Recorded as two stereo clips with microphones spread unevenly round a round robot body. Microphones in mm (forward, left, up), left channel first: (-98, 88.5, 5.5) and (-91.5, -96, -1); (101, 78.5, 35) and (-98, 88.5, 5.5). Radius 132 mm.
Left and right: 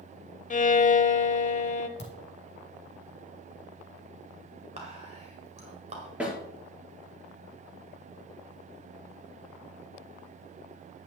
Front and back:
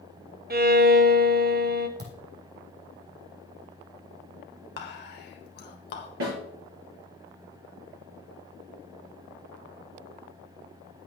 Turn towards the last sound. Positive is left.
turn(degrees=-170)